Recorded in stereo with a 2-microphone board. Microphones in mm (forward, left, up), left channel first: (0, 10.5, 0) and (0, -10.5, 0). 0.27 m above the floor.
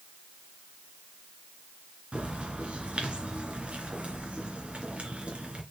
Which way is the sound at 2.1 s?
60° right (ahead or behind).